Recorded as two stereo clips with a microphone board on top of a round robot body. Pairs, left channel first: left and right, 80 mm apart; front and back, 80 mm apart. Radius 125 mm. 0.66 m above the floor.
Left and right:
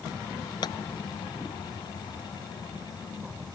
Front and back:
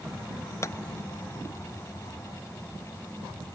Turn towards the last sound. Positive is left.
turn(degrees=55)